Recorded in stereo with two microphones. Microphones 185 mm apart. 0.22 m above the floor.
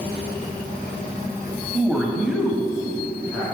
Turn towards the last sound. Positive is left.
turn(degrees=0)  # may be behind; listen again after turning